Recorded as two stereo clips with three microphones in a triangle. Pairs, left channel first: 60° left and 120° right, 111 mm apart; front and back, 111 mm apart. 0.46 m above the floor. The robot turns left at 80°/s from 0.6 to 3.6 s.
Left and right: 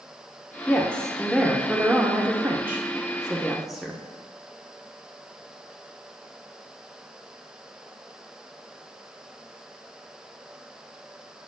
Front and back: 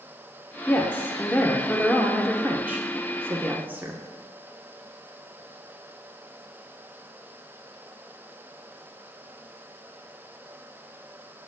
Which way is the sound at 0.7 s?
25° left.